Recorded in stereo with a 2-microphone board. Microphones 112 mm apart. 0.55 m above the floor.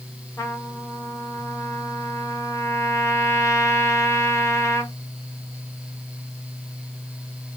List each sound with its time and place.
0.4 s a trumpet: 25° left (ahead or behind), 1.1 m